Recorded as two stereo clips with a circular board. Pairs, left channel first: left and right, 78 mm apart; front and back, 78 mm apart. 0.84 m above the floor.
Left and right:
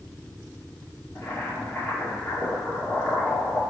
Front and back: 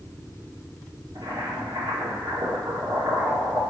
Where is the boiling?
145° left, 2 m.